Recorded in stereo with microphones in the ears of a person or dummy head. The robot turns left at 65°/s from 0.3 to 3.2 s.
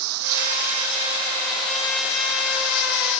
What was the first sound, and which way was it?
Running water, 100° right.